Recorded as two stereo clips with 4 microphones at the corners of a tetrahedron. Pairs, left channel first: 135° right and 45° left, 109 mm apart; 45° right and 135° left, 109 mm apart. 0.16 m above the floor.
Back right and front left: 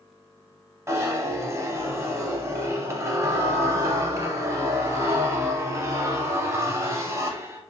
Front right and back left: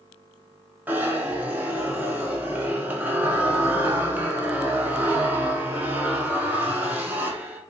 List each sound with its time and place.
0.9 s a zipper: 80° left, 0.5 m